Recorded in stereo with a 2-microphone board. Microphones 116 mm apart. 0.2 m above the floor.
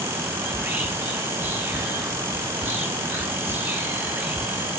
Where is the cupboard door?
No cupboard door in this recording.